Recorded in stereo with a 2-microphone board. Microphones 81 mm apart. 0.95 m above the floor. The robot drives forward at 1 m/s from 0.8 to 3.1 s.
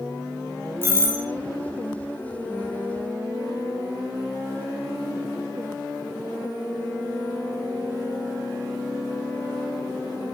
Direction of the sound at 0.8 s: 30° right (ahead or behind).